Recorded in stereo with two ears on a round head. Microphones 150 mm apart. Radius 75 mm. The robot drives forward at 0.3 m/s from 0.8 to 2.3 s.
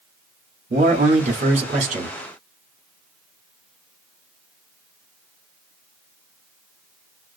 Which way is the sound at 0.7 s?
40° right (ahead or behind).